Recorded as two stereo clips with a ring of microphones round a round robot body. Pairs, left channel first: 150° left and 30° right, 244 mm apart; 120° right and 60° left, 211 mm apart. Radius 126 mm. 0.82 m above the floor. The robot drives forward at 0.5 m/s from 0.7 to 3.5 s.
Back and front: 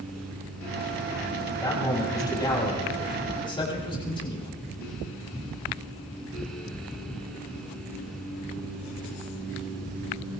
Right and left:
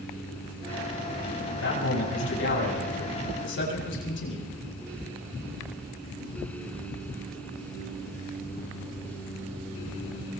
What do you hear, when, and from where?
1.5 s a man speaking: 135° right, 5.5 m; by 4.5 s 140° right, 6.5 m